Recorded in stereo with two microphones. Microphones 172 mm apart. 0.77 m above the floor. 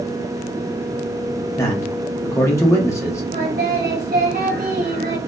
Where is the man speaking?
15° left (ahead or behind), 0.8 m.